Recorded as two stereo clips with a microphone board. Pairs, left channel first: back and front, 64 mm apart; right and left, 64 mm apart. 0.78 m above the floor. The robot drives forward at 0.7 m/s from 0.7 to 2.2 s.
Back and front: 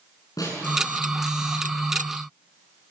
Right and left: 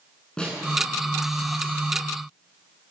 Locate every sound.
0.4 s a snare drum: 165° right, 8.5 m